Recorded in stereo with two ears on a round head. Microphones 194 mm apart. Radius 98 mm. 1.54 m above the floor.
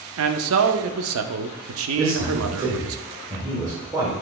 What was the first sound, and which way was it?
A man speaking, 65° right (ahead or behind).